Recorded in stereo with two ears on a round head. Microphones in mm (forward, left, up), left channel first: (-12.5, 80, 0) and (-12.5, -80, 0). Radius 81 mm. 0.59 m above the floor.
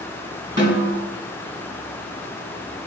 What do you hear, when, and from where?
0.6 s a snare drum: 25° right (ahead or behind), 3.5 m